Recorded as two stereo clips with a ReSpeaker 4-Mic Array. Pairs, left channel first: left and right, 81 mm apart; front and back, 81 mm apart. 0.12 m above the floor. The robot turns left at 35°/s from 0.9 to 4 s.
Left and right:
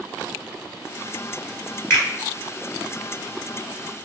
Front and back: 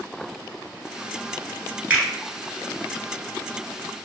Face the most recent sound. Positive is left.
turn(degrees=45)